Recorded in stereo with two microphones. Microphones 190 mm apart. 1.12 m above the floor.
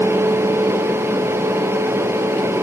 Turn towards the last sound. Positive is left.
No sound to turn to.